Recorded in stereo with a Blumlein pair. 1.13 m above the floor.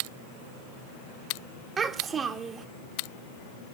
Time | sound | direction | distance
1.8 | a child speaking | 15° right | 1.5 m